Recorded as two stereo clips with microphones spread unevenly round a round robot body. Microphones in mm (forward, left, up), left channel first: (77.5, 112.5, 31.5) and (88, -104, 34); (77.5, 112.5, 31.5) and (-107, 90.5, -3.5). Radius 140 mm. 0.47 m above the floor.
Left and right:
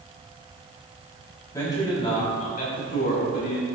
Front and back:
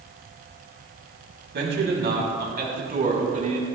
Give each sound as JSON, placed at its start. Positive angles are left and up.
{"t": 1.5, "sound": "a man speaking", "azimuth_deg": 170, "distance_m": 3.5}